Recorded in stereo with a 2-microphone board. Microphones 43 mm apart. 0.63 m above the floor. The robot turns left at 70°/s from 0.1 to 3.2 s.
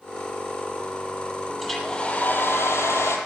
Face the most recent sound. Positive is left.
turn(degrees=70)